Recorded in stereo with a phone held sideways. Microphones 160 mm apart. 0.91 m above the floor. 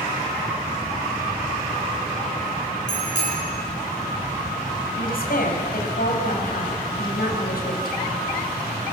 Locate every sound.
2.9 s a bicycle bell: 50° left (ahead or behind), 8 m
5.0 s a woman speaking: 70° left (ahead or behind), 5 m